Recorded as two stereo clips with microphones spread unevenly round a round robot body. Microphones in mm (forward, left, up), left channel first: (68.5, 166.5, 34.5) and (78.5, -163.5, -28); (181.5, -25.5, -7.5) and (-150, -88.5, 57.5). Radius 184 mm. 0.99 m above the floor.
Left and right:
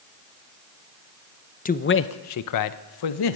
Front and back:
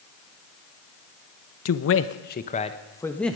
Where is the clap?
No clap in this recording.